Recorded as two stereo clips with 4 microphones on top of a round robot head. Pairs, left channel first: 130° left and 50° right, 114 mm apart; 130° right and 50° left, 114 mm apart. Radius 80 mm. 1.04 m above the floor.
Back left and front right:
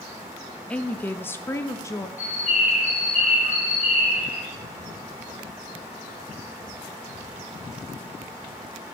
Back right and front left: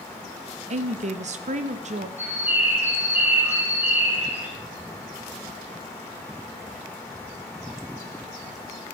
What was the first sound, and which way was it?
A woman speaking, 50° left.